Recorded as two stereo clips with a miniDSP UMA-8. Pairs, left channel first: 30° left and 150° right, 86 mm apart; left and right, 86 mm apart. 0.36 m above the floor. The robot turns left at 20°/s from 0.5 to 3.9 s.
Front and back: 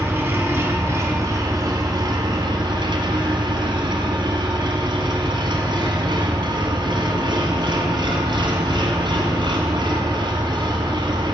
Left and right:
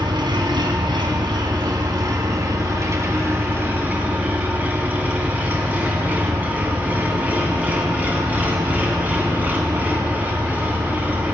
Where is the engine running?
90° right, 1.7 m; by 11.3 s 160° right, 1.7 m.